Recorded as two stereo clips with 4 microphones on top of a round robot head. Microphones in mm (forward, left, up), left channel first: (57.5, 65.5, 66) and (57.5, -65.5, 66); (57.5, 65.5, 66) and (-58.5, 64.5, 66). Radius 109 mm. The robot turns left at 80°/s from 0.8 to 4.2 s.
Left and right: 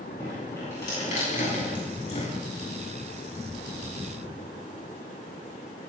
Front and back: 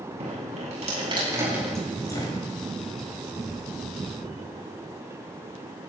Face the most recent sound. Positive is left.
turn(degrees=-110)